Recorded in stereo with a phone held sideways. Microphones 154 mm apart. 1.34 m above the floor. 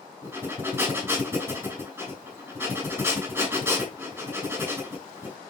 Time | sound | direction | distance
0.2 | breathing | 15° right (ahead or behind) | 6.5 m